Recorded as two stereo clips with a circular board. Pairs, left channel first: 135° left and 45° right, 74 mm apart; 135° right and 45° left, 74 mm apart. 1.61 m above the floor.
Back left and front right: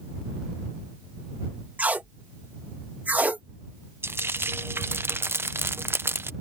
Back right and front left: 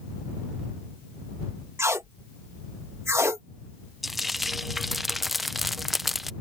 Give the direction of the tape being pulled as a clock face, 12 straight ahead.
12 o'clock.